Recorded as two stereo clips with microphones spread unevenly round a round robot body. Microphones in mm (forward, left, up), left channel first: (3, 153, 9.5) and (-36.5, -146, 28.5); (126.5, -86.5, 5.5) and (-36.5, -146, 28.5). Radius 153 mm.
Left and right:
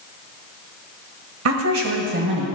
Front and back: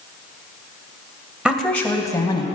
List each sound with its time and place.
1.4 s a woman speaking: 70° right, 1.4 m; by 2.5 s 40° right, 2 m